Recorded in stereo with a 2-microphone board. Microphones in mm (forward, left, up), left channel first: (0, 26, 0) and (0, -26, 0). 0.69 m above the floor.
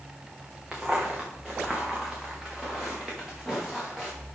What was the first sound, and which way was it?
Footsteps, 15° right (ahead or behind).